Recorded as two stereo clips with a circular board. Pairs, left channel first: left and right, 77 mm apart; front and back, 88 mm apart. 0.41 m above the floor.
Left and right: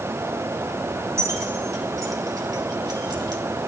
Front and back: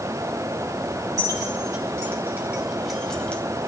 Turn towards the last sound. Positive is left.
turn(degrees=-70)